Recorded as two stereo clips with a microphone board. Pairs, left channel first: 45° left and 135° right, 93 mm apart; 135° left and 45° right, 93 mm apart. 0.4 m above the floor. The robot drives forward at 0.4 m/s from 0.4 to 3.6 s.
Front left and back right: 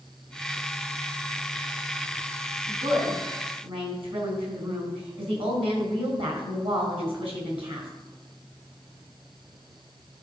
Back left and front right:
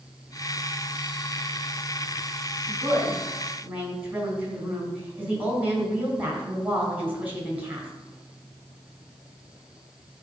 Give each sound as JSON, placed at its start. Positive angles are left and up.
{"t": 2.7, "sound": "a woman speaking", "azimuth_deg": -110, "distance_m": 3.5}